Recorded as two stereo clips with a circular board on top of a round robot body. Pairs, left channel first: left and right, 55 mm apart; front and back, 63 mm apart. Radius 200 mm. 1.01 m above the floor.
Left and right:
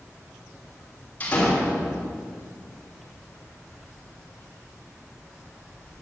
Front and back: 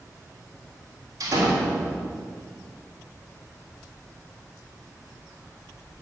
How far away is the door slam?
About 3 m.